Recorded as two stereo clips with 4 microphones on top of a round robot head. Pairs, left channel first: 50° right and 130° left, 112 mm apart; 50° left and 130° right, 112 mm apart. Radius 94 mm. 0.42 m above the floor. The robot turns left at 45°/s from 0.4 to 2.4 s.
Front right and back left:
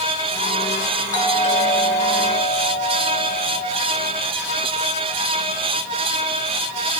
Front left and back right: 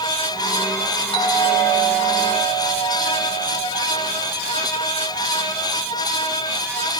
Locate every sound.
1.1 s a doorbell: 20° left, 8 m; by 3.8 s 40° right, 8 m